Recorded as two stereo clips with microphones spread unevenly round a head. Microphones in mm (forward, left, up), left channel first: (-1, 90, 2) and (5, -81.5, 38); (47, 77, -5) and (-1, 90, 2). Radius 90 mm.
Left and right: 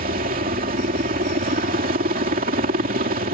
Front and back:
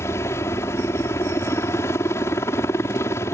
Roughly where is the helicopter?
Ahead right.